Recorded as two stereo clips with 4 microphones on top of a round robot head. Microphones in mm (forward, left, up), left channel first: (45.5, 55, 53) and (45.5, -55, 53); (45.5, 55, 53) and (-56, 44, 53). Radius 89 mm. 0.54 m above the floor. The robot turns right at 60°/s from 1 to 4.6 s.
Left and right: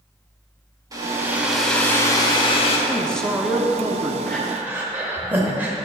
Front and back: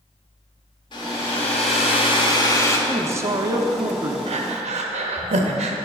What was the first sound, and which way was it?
A hair dryer, 35° right.